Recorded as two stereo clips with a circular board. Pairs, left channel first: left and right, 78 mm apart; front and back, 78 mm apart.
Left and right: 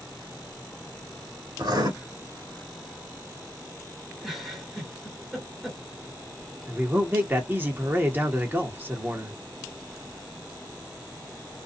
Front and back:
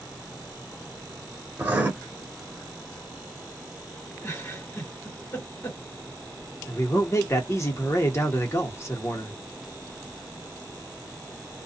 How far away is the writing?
About 1.1 m.